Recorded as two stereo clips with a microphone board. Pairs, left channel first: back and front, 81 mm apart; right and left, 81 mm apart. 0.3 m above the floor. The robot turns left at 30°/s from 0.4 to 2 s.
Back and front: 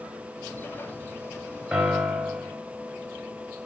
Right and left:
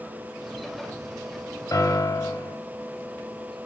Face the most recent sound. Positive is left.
turn(degrees=-85)